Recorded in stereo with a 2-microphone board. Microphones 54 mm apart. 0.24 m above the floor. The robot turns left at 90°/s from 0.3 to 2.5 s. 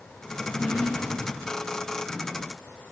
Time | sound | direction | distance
0.4 | a drawer | 50° left | 6 m